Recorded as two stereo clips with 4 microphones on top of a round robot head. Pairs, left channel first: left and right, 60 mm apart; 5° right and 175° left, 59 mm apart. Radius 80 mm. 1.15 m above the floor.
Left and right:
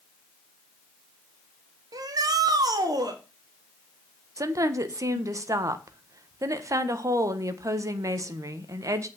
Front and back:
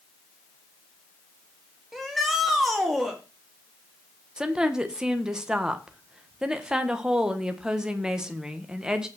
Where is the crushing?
I don't hear crushing.